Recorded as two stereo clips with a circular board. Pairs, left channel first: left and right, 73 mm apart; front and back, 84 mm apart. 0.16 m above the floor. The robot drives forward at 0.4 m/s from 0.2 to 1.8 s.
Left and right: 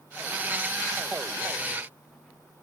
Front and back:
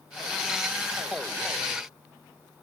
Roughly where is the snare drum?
No snare drum in this recording.